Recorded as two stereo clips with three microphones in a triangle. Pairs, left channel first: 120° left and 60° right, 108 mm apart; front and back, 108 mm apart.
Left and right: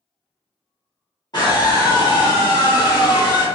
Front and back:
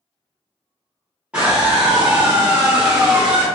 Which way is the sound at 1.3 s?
105° left.